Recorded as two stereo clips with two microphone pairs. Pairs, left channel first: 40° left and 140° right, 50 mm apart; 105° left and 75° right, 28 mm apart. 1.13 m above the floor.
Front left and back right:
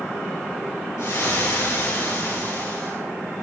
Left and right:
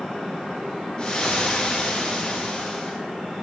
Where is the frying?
50° left, 4 m.